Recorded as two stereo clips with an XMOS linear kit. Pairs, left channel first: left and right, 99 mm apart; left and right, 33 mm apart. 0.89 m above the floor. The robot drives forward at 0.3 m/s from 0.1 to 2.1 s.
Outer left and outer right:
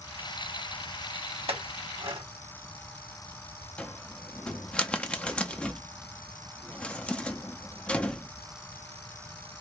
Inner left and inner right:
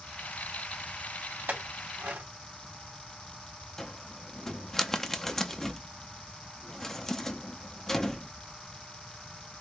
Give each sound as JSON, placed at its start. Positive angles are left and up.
{"t": 1.5, "sound": "a clink", "side_deg": -75, "distance_m": 1.1}
{"t": 3.8, "sound": "a cupboard door", "side_deg": 10, "distance_m": 0.6}